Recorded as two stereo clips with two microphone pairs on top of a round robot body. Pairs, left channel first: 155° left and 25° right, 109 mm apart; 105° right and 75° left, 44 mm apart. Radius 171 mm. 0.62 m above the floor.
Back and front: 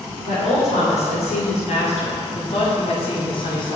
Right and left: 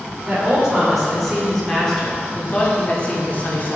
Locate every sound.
0.3 s a woman speaking: 150° left, 3 m; by 3.8 s 155° right, 2.5 m